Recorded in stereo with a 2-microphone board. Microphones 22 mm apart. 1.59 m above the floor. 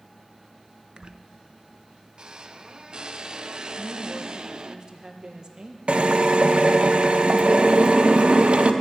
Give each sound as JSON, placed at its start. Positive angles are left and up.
{"t": 1.0, "sound": "a squeak", "side_deg": -35, "distance_m": 0.6}
{"t": 3.8, "sound": "a woman speaking", "side_deg": -30, "distance_m": 1.4}
{"t": 5.9, "sound": "a drill", "side_deg": -55, "distance_m": 0.8}